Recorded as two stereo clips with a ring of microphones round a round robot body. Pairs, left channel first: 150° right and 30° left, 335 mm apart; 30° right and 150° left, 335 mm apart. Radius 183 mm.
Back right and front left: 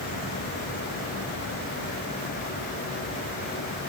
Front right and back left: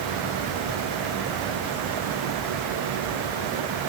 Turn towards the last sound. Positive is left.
No sound to turn to.